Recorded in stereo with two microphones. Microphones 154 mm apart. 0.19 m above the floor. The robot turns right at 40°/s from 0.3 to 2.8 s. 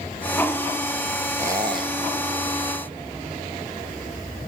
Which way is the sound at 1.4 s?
15° right (ahead or behind).